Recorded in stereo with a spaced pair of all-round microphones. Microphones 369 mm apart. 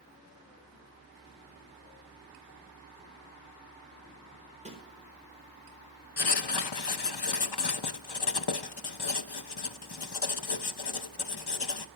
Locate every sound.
4.7 s a snare drum: 15° right (ahead or behind), 4 m
6.2 s writing: 75° left (ahead or behind), 0.7 m